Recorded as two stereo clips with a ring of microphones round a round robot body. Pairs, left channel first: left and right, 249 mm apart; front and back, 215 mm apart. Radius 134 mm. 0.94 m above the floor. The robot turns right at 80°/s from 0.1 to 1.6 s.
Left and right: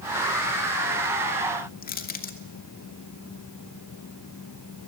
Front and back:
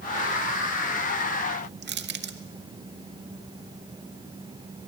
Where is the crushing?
145° left, 1.8 m.